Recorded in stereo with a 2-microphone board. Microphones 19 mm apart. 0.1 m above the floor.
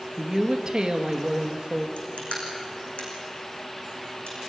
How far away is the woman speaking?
About 2 m.